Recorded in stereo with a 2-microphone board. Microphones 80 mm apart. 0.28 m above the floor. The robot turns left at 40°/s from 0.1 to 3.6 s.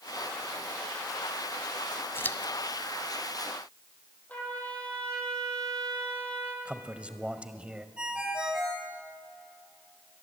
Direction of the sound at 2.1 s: 30° left (ahead or behind).